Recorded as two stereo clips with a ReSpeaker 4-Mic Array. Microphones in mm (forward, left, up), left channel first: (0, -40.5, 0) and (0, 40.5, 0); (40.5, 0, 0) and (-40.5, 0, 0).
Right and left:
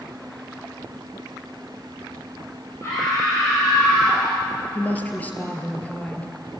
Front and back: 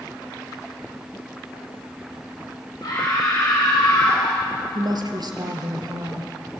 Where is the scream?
35° right, 4 m; by 4.4 s 20° right, 5 m.